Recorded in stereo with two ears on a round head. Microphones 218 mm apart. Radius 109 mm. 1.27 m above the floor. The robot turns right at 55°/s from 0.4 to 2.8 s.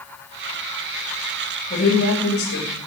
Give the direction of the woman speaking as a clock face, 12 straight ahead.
11 o'clock.